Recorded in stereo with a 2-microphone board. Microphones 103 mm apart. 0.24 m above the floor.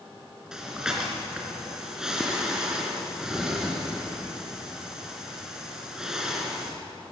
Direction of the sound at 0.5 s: 5° right (ahead or behind).